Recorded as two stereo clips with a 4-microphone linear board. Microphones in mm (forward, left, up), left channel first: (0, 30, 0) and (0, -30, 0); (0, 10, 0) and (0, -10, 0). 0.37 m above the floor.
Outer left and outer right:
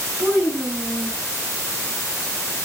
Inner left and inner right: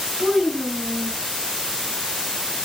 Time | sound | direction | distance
0.2 | a child speaking | 45° right (ahead or behind) | 1.2 m